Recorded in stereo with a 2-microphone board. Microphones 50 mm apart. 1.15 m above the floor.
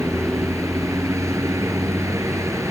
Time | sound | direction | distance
0.0 | a vehicle | 75° right (ahead or behind) | ?